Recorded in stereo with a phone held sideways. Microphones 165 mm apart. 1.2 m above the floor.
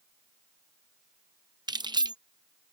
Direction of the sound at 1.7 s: 25° right (ahead or behind).